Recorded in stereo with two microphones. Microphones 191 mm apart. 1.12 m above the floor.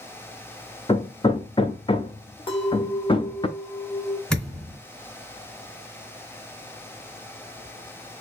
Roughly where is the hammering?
Left.